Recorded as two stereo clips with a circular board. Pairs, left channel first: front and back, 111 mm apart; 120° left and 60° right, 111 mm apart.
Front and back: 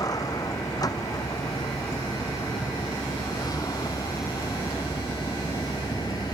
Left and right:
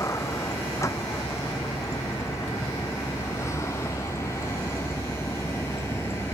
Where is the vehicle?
55° left; by 6.3 s 50° left.